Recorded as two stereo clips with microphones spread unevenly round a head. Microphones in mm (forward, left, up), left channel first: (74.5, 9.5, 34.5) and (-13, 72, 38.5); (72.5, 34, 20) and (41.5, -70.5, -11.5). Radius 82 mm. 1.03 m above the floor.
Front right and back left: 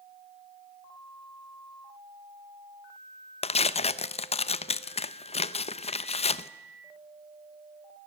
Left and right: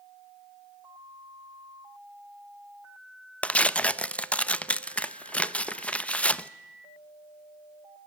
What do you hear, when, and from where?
3.4 s tearing paper: 10° right, 0.7 m